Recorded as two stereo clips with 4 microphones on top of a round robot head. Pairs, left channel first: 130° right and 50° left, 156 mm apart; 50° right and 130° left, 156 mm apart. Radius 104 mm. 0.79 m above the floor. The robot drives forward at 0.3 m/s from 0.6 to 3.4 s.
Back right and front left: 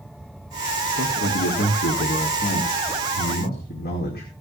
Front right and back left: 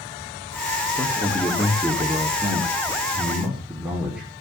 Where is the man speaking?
135° right, 1.6 m; by 4.3 s 150° right, 2 m.